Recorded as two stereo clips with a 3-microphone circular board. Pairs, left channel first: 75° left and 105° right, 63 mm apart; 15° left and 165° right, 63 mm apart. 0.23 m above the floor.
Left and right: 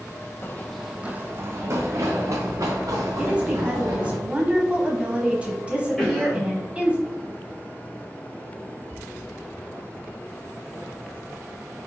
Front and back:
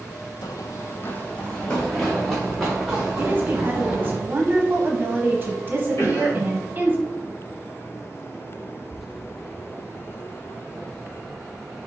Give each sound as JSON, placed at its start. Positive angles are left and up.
{"t": 0.4, "sound": "running footsteps", "azimuth_deg": 25, "distance_m": 0.5}
{"t": 3.2, "sound": "a woman speaking", "azimuth_deg": -155, "distance_m": 1.2}
{"t": 6.0, "sound": "a cough", "azimuth_deg": -10, "distance_m": 2.0}